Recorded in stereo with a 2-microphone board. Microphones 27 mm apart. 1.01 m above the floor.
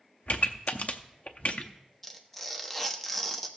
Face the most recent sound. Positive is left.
turn(degrees=10)  # may be behind; listen again after turning